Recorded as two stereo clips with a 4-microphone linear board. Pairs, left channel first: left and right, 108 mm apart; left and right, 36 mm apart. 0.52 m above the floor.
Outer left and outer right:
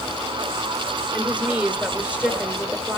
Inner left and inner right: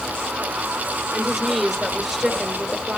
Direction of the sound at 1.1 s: 10° right (ahead or behind).